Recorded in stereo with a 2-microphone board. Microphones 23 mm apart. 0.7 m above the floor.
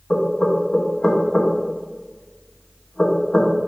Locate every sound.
0.1 s knocking: 60° left (ahead or behind), 1.6 m